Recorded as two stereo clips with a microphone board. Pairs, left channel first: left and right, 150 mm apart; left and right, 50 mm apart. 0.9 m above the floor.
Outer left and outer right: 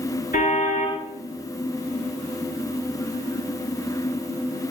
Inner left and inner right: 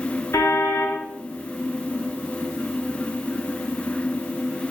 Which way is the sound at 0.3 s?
65° left (ahead or behind).